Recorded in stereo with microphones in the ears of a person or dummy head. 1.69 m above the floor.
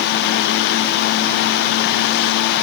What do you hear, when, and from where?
Only background noise.